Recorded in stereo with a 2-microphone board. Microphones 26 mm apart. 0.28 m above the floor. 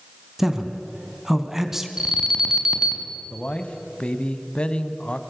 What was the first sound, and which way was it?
A man speaking, 15° right (ahead or behind).